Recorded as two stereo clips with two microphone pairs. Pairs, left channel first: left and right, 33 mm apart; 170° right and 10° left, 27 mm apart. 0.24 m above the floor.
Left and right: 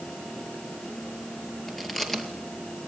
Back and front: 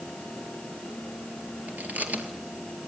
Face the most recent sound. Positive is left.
turn(degrees=10)